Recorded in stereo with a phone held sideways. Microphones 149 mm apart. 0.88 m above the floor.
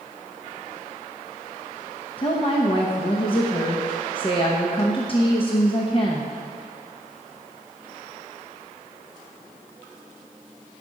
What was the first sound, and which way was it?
A woman speaking, 40° left (ahead or behind).